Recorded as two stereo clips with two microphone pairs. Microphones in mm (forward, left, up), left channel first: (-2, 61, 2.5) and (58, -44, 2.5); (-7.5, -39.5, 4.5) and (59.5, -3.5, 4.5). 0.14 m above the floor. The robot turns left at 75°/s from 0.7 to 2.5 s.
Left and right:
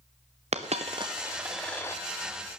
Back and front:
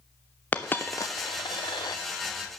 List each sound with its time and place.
0.5 s a dropped coin: 85° right, 1.2 m; by 2.0 s 175° left, 1.2 m